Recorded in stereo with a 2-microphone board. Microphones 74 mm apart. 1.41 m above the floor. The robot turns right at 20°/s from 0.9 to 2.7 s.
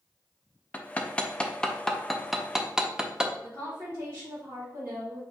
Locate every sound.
0.7 s hammering: 20° left (ahead or behind), 0.5 m; by 3.3 s 5° right (ahead or behind), 0.5 m
3.4 s a woman speaking: 40° right (ahead or behind), 2 m